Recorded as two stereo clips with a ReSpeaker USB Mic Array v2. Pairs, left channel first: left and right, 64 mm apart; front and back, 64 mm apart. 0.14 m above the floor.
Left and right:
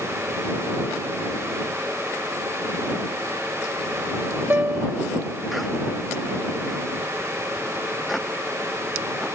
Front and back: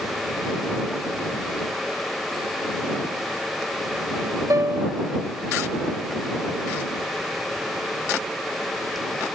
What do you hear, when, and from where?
4.5 s a piano: 150° right